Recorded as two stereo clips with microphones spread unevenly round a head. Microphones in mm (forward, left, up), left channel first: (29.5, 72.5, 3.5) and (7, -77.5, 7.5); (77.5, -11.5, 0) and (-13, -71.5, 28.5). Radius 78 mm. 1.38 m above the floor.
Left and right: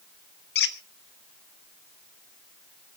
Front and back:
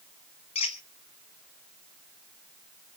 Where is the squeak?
95° left, 1.2 m.